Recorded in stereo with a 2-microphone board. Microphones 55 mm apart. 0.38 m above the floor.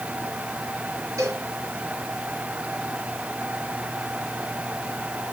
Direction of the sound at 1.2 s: 80° right.